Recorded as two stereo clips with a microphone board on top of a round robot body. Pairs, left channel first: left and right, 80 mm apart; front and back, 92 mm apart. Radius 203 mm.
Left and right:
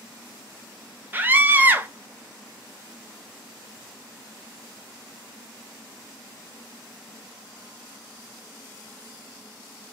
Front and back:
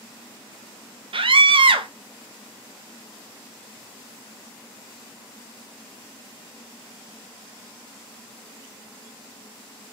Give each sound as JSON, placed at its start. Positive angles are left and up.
{"t": 1.1, "sound": "a scream", "azimuth_deg": -155, "distance_m": 0.8}